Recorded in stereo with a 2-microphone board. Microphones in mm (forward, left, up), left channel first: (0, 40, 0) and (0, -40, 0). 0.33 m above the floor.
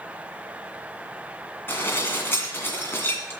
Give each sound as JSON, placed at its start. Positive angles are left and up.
{"t": 1.7, "sound": "dishes clattering", "side_deg": 25, "distance_m": 1.9}